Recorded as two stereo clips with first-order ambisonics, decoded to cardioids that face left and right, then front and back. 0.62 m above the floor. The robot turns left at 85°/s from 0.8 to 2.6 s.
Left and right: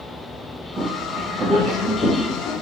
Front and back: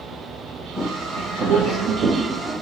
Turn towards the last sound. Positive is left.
turn(degrees=105)